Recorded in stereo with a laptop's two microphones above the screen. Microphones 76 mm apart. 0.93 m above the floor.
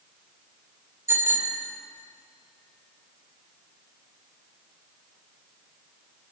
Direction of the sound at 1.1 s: 30° right (ahead or behind).